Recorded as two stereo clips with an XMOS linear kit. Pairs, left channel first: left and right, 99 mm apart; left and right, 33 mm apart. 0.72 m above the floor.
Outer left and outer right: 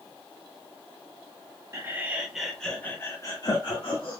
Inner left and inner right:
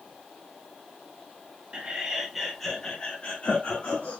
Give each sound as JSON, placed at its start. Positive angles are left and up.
{"t": 1.7, "sound": "laughter", "side_deg": -25, "distance_m": 1.0}